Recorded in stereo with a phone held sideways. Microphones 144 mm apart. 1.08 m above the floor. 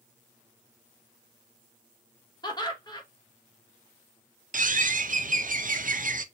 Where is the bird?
70° right (ahead or behind), 0.5 m.